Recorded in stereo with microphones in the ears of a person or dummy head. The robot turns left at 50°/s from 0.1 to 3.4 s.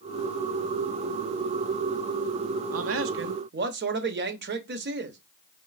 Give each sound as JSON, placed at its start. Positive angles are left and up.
{"t": 2.7, "sound": "a man speaking", "azimuth_deg": -90, "distance_m": 0.7}